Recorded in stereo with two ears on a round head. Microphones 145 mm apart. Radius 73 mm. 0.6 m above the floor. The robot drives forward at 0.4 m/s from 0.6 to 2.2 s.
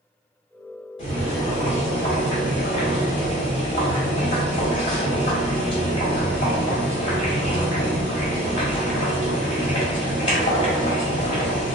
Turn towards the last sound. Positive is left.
turn(degrees=30)  # may be behind; listen again after turning